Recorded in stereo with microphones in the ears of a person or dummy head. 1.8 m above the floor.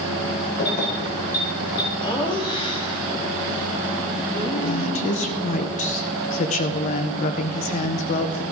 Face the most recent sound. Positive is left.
turn(degrees=45)  # may be behind; listen again after turning